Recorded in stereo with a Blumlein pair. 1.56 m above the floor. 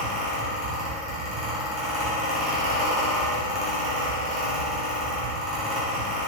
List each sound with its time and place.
0.0 s a fan: 20° right, 1.7 m